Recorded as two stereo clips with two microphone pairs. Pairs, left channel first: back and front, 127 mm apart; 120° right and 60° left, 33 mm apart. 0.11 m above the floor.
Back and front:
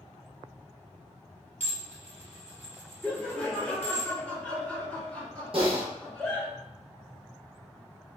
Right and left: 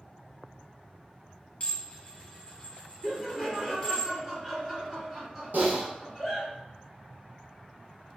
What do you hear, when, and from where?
1.6 s dishes clattering: 170° right, 1.7 m
3.0 s laughter: 110° left, 1.6 m
5.5 s typing on a keyboard: 45° left, 1.2 m